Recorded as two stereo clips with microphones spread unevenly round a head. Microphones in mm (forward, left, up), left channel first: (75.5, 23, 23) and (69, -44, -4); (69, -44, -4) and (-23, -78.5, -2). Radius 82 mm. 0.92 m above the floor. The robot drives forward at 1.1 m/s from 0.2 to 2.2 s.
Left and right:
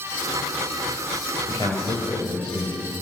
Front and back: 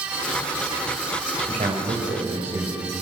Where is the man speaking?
150° left, 4.5 m; by 2.9 s 155° left, 5.5 m.